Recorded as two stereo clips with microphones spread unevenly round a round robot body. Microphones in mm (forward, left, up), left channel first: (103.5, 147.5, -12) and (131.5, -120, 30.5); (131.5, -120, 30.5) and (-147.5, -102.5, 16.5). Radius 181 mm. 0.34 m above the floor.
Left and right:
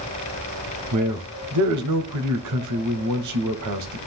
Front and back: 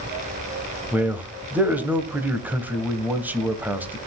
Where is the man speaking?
100° right, 1.7 m.